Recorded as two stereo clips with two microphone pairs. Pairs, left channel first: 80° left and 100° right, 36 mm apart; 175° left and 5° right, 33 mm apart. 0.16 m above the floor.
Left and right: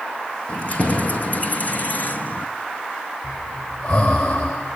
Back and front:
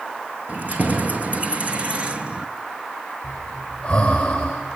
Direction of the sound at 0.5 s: 30° left.